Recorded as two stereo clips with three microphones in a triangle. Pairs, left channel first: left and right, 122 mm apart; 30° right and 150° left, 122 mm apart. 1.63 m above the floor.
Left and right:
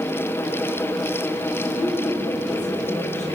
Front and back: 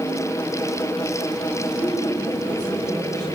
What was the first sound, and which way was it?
A woman speaking, 95° left.